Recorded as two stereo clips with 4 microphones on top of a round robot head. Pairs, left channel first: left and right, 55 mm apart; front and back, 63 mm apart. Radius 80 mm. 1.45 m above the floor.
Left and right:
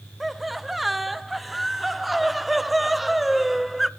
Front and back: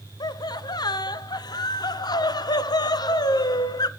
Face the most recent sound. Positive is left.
turn(degrees=0)